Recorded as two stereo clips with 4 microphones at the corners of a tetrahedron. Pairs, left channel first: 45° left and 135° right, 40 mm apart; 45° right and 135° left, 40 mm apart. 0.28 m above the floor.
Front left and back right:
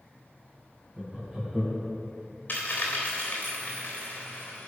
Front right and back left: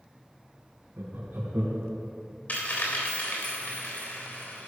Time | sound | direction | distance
1.0 | laughter | 150° left | 3 m
2.5 | a dropped coin | straight ahead | 3.5 m